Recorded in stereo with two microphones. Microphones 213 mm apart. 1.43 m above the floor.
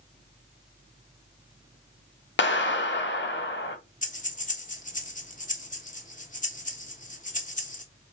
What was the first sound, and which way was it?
A clap, 60° left (ahead or behind).